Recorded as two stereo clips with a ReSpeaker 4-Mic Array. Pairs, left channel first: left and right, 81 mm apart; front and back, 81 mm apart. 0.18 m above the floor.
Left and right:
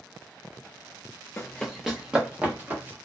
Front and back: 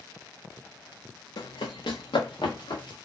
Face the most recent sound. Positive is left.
turn(degrees=-25)